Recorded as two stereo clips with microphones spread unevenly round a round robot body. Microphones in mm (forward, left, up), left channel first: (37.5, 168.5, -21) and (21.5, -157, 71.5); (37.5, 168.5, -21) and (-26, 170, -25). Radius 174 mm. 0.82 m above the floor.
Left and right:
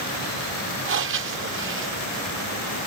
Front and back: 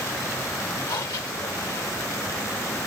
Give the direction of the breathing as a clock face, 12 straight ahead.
1 o'clock.